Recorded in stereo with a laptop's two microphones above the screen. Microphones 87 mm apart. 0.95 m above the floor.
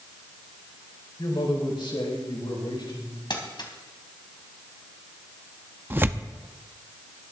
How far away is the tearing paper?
About 0.5 m.